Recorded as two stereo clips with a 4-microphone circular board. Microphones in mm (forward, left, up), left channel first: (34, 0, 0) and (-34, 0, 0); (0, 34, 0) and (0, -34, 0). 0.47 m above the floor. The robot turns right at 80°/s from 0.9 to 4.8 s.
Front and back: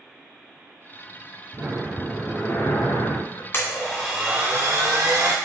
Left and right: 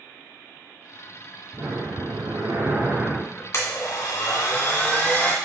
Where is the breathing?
130° right, 1.2 m; by 3.4 s 20° left, 1.2 m.